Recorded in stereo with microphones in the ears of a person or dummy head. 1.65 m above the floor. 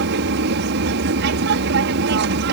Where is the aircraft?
60° right (ahead or behind).